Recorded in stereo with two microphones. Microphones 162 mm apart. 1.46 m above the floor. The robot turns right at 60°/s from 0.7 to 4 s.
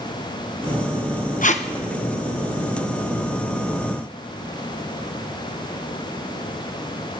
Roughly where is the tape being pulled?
Left.